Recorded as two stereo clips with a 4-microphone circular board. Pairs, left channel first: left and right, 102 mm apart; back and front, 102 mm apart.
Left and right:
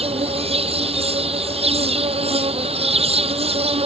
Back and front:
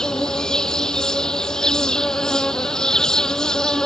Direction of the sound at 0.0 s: 95° right.